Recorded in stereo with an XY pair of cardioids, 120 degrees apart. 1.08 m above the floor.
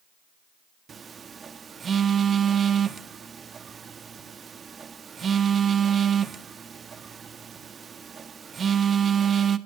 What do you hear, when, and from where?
0.9 s a phone buzzing: 35° right, 1.5 m